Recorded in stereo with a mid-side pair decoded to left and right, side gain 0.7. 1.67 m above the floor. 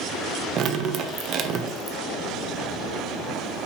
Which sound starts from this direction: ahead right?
Dripping, at 0.6 s.